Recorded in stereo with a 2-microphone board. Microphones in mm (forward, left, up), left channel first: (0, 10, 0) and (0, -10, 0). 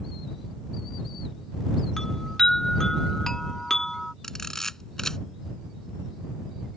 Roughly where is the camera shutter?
Centre.